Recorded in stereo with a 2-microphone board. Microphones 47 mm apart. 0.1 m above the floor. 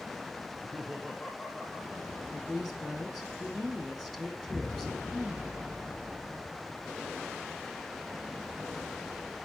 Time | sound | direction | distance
0.5 | laughter | 5° left (ahead or behind) | 2 m
2.3 | a woman speaking | 10° right (ahead or behind) | 3.5 m
4.5 | an explosion | 10° left (ahead or behind) | 1.9 m